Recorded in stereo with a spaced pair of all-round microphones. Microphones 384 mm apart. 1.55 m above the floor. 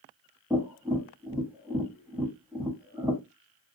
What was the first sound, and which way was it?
Tapping, 5° right (ahead or behind).